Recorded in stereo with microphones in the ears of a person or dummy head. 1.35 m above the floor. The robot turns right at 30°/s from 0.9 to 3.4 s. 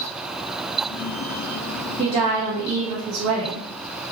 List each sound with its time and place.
2.0 s a woman speaking: 145° right, 0.6 m; by 3.7 s 100° right, 0.6 m